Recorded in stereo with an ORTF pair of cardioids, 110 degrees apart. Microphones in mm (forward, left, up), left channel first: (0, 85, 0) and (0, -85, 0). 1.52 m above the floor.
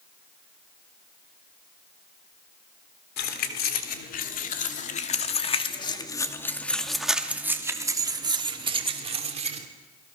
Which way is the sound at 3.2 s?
65° left.